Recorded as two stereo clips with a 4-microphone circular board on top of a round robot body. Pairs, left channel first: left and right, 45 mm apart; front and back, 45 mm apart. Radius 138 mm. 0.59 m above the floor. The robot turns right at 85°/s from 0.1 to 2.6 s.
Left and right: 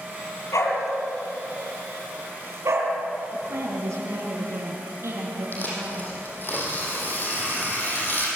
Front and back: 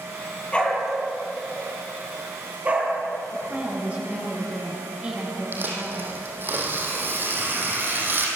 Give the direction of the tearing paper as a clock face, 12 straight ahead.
7 o'clock.